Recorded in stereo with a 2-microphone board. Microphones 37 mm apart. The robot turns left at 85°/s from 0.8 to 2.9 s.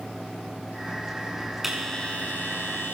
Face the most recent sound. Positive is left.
turn(degrees=80)